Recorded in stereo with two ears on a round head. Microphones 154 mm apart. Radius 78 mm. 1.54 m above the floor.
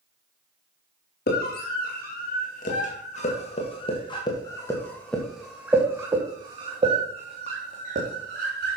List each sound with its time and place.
1.3 s a scream: 60° left (ahead or behind), 2.5 m; by 8.8 s 55° right (ahead or behind), 2.5 m